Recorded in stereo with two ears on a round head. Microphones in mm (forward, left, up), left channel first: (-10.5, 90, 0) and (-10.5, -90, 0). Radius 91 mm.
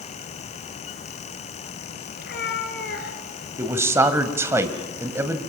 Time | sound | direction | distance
2.2 | a cat meowing | 50° left (ahead or behind) | 2 m
3.6 | a man speaking | 15° right (ahead or behind) | 1.9 m